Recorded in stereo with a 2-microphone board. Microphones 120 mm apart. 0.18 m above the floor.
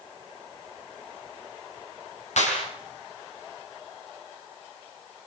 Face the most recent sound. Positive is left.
turn(degrees=70)  # may be behind; listen again after turning